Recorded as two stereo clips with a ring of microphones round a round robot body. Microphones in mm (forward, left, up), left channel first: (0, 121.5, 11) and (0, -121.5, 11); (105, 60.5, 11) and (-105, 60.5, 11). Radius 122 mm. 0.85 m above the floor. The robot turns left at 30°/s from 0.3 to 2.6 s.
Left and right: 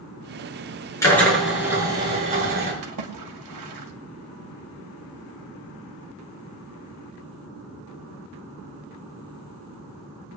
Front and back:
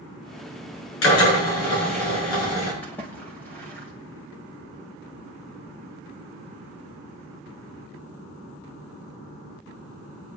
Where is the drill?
10° left, 6.5 m; by 2.7 s 35° right, 6.5 m.